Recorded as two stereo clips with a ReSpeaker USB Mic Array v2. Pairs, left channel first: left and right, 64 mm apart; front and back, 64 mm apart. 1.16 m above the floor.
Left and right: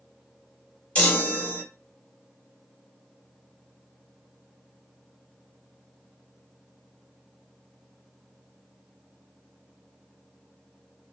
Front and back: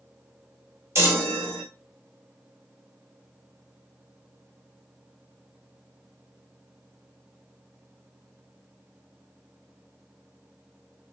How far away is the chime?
About 0.9 m.